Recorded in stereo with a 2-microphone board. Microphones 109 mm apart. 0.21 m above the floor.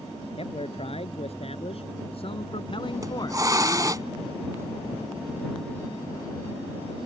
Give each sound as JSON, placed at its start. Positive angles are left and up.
{"t": 0.4, "sound": "a man speaking", "side_deg": 55}
{"t": 2.9, "sound": "a hiss", "side_deg": -30}